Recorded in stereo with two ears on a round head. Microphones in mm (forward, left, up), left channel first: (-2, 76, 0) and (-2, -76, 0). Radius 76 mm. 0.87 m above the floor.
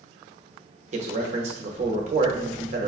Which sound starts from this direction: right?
A man speaking, at 0.9 s.